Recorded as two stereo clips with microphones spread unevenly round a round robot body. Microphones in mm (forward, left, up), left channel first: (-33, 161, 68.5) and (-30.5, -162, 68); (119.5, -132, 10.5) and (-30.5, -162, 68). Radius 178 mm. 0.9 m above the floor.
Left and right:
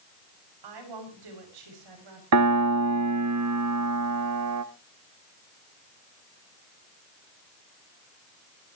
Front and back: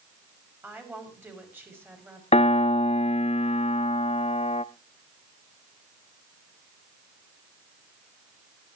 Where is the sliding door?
No sliding door in this recording.